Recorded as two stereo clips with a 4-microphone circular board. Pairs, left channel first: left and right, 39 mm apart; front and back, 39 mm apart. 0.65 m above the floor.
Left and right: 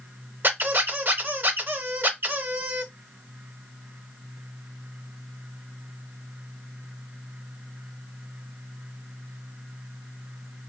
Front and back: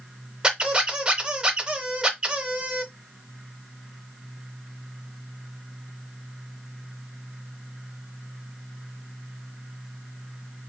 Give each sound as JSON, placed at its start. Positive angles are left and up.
{"t": 0.4, "sound": "a squeak", "azimuth_deg": -115, "distance_m": 0.7}